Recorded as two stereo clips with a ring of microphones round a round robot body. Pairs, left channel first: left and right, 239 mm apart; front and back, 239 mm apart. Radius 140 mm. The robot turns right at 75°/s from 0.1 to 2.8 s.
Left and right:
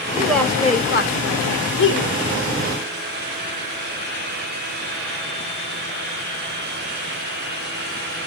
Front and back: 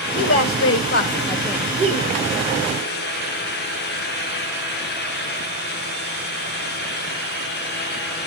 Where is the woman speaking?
15° right, 1.9 m; by 2.2 s 140° left, 1.9 m.